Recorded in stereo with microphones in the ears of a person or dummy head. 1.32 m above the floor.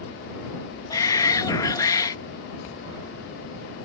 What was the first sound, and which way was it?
A shout, 20° left (ahead or behind).